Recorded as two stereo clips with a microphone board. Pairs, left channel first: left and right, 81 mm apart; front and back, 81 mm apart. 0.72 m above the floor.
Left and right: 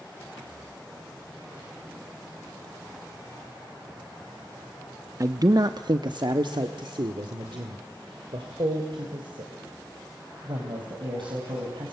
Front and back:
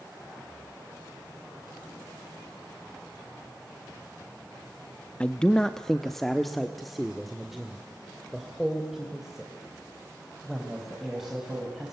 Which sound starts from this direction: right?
A man speaking, at 5.2 s.